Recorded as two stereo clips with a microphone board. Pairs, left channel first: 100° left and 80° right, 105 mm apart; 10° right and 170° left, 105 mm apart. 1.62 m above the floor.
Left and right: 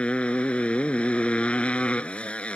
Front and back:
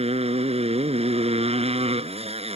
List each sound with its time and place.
0.0 s a motorcycle: straight behind